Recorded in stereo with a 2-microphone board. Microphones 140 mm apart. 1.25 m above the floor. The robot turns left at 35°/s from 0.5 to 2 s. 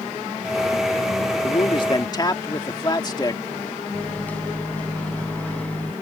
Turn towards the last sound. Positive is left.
turn(degrees=10)  # may be behind; listen again after turning